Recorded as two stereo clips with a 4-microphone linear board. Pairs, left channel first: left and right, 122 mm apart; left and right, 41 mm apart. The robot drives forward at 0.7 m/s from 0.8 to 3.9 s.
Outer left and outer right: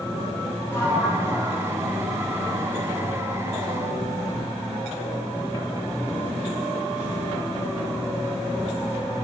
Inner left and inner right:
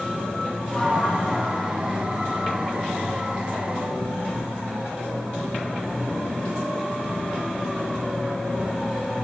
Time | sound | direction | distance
0.7 | a sliding door | 20° left (ahead or behind) | 1.9 m